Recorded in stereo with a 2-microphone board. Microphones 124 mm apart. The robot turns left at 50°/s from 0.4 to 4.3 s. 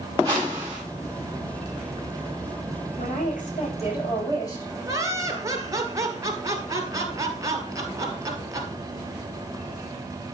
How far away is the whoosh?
About 6.5 m.